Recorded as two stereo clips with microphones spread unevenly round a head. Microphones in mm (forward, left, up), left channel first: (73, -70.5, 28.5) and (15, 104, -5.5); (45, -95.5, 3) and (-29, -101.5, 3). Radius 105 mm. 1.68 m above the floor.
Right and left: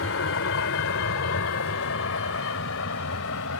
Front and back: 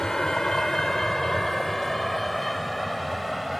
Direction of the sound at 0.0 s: 80° right.